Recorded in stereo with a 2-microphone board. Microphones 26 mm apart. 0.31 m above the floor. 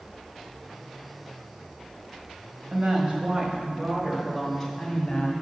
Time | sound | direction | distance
2.7 | a woman speaking | 50° right (ahead or behind) | 1.7 m